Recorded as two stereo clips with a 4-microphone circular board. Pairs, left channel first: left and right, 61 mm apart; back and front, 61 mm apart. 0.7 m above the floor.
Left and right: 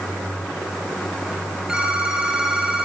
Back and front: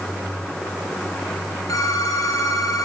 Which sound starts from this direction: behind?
A phone ringing, at 1.7 s.